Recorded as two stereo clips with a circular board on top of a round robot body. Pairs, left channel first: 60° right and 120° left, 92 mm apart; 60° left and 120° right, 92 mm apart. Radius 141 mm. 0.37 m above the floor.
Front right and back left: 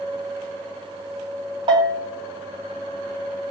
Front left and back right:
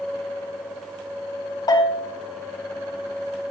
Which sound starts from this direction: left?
A bell, at 1.7 s.